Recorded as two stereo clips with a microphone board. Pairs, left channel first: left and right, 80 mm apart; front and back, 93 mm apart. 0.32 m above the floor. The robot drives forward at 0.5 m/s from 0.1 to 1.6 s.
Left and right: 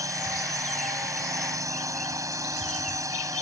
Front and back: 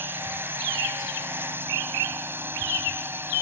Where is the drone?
120° right.